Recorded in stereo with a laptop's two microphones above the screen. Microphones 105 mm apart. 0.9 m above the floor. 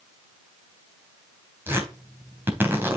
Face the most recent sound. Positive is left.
turn(degrees=-20)  # may be behind; listen again after turning